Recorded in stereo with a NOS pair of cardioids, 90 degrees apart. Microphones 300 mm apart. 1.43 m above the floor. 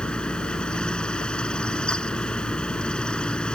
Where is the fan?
5° left.